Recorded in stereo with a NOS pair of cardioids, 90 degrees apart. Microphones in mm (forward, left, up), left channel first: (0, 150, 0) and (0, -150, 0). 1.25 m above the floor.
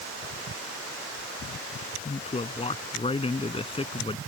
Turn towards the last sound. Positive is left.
turn(degrees=15)